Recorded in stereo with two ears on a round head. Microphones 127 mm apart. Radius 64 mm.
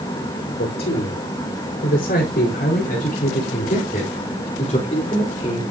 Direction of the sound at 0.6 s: 85° left.